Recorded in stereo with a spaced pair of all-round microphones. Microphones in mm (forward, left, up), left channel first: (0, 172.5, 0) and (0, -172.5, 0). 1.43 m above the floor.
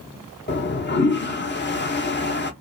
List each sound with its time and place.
0.5 s a toilet flushing: 30° left (ahead or behind), 0.5 m